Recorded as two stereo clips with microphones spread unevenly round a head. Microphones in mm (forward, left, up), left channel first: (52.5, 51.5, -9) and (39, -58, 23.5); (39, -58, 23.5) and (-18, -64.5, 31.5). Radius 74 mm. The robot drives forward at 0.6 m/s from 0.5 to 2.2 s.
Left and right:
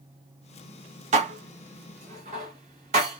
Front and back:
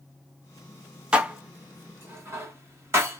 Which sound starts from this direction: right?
Dishes clattering, at 1.1 s.